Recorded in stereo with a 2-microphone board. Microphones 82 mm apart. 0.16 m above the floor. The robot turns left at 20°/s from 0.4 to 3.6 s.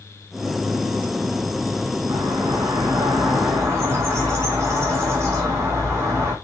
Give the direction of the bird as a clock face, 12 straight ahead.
4 o'clock.